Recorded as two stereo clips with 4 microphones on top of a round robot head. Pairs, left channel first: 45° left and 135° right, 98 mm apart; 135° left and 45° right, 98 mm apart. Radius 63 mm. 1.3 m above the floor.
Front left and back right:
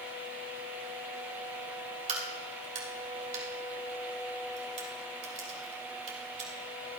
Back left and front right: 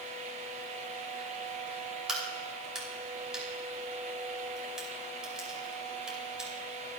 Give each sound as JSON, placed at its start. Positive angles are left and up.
{"t": 2.1, "sound": "a crack", "azimuth_deg": -130, "distance_m": 3.0}